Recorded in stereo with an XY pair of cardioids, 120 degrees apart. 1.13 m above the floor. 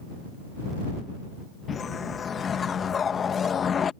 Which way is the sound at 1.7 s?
40° left.